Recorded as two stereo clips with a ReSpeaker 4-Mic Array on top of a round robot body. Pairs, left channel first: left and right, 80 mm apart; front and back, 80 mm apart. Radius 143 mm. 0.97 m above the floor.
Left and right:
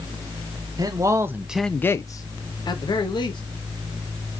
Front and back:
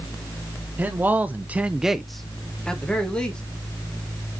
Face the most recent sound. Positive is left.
turn(degrees=75)